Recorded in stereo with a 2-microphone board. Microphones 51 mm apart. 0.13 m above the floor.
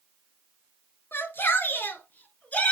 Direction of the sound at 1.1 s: 50° left (ahead or behind).